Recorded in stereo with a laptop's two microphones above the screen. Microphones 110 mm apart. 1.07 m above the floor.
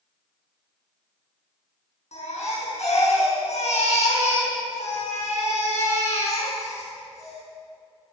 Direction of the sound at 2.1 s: 80° left.